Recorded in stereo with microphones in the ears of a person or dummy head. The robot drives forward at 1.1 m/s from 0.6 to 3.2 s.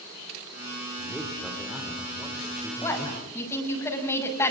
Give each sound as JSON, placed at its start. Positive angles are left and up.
{"t": 1.0, "sound": "a man speaking", "side_deg": -5, "distance_m": 3.0}
{"t": 2.8, "sound": "a woman speaking", "side_deg": 20, "distance_m": 6.0}